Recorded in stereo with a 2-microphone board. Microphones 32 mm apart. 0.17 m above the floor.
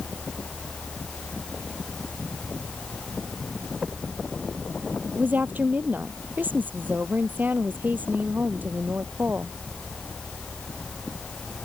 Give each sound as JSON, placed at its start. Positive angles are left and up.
{"t": 5.2, "sound": "a woman speaking", "side_deg": -75}